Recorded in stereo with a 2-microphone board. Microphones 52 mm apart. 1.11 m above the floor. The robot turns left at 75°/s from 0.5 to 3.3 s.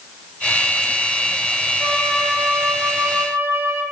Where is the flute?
45° left, 5 m; by 3.8 s 65° right, 5 m.